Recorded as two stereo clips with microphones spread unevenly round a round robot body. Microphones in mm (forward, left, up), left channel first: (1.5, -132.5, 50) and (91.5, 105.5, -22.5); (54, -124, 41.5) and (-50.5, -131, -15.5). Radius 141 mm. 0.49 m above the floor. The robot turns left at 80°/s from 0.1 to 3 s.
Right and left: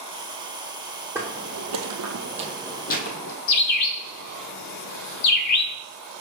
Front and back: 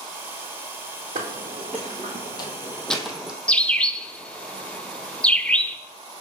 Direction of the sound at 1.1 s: 160° left.